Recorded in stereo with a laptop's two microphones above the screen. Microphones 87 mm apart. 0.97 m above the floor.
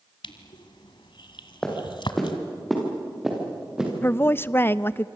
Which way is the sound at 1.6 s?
5° left (ahead or behind).